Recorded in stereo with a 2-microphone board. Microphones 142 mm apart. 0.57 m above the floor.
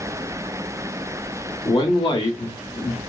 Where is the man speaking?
35° left (ahead or behind), 0.8 m.